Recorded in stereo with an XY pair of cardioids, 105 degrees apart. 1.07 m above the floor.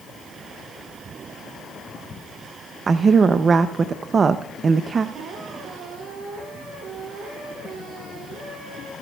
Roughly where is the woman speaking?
Ahead right.